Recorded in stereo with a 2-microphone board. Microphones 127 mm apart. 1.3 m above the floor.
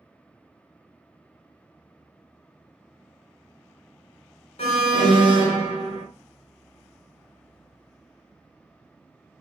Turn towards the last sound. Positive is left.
turn(degrees=60)  # may be behind; listen again after turning